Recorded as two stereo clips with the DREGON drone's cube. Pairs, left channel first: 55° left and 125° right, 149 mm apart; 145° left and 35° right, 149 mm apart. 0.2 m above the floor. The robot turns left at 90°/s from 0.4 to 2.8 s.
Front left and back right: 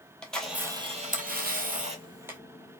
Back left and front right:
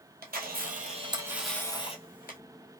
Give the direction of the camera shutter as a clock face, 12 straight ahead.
1 o'clock.